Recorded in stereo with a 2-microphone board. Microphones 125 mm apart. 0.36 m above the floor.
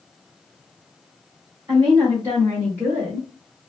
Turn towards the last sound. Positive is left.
turn(degrees=5)  # may be behind; listen again after turning